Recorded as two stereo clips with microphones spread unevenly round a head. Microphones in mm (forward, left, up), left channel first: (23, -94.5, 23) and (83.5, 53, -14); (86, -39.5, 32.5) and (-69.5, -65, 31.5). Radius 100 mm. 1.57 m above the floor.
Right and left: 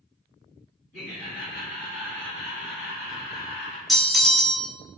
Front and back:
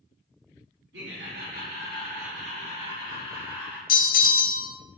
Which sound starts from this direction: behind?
Laughter, at 0.9 s.